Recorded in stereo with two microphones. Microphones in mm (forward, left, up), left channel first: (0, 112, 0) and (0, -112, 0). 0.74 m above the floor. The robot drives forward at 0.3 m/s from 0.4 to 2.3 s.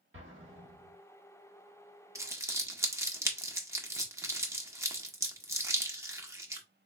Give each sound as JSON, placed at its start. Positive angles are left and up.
{"t": 0.1, "sound": "an explosion", "side_deg": -60, "distance_m": 1.3}
{"t": 2.1, "sound": "crumpling", "side_deg": -15, "distance_m": 0.7}